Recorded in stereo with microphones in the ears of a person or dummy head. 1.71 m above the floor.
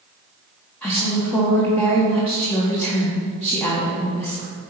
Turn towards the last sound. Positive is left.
turn(degrees=10)  # may be behind; listen again after turning